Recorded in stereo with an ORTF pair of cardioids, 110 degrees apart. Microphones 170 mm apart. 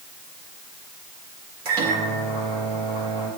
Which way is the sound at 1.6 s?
70° right.